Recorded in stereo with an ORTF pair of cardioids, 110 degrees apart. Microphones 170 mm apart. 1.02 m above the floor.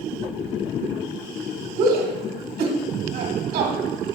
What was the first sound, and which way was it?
A shout, 65° right.